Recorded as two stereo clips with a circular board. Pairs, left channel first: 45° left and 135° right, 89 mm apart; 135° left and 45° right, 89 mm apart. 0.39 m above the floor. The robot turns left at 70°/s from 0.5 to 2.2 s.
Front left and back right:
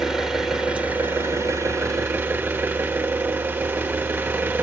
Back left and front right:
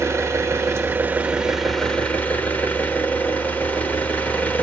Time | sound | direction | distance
0.0 | an engine running | 55° right | 1.3 m